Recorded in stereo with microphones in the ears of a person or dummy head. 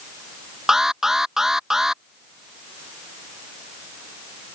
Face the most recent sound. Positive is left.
turn(degrees=-10)  # may be behind; listen again after turning